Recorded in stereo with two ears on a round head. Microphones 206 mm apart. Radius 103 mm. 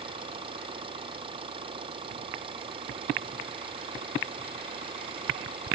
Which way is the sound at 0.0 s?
25° right (ahead or behind).